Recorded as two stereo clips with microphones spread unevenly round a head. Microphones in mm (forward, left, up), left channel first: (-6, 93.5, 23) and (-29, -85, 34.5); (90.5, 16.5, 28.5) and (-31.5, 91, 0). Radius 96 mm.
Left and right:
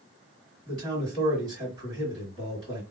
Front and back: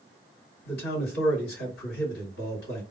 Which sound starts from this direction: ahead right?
A man speaking, at 0.7 s.